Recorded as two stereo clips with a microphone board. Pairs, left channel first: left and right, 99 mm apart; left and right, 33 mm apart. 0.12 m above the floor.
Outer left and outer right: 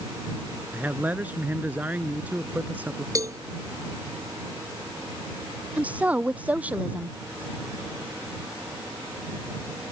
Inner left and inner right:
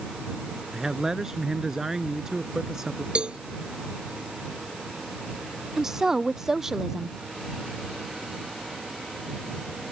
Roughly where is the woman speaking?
Centre.